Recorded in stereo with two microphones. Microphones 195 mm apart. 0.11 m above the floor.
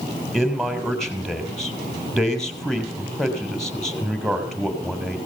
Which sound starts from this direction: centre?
A man speaking, at 0.3 s.